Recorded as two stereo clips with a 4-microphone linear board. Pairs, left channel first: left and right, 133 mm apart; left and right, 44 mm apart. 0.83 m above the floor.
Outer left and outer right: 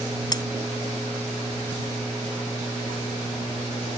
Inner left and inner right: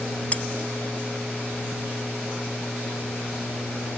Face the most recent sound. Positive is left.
turn(degrees=30)  # may be behind; listen again after turning